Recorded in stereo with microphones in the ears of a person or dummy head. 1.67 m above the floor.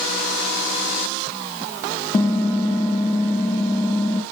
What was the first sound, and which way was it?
Typing on a keyboard, 15° left (ahead or behind).